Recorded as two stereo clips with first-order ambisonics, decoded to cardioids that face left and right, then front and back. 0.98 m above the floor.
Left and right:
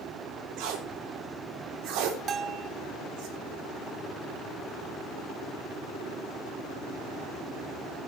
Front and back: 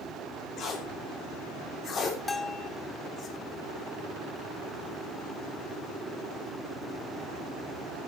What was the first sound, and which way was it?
Tape being pulled, 60° right.